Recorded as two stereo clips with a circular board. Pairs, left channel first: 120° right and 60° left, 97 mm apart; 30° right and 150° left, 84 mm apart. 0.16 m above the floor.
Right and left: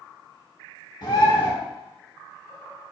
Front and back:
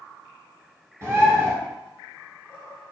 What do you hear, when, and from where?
1.0 s a bird: 160° right, 1.1 m